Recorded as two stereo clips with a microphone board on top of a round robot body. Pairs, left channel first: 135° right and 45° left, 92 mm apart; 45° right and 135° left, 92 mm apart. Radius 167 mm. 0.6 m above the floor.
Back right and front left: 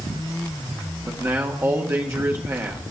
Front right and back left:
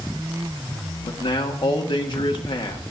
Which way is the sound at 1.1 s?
15° right.